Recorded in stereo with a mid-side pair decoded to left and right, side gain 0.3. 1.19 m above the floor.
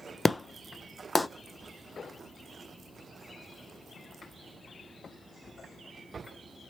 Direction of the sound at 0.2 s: 25° left.